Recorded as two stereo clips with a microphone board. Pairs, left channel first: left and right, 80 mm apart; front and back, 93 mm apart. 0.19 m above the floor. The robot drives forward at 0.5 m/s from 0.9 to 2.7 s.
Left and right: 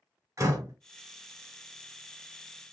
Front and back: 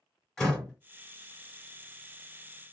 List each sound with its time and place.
0.4 s a door slam: 80° right, 1.3 m